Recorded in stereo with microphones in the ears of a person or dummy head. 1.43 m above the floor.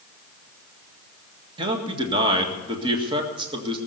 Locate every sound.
1.6 s a man speaking: 25° right (ahead or behind), 1.7 m